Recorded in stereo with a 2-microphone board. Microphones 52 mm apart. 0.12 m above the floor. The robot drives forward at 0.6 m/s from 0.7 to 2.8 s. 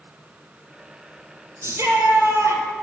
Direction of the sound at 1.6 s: 60° right (ahead or behind).